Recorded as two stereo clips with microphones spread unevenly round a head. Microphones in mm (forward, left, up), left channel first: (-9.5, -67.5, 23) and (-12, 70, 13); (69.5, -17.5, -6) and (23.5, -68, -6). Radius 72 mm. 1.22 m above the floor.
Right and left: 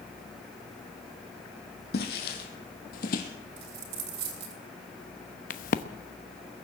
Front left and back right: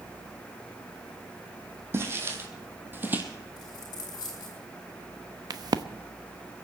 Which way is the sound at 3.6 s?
95° left.